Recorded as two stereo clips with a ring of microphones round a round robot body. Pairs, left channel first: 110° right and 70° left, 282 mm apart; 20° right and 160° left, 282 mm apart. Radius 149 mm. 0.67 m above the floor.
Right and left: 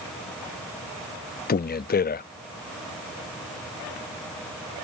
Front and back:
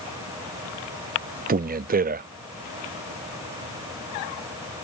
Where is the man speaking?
155° right.